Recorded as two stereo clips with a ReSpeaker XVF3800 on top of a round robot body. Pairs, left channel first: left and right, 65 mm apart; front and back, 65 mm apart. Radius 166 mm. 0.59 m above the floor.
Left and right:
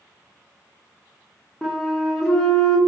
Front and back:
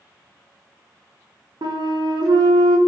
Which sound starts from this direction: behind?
A flute, at 1.6 s.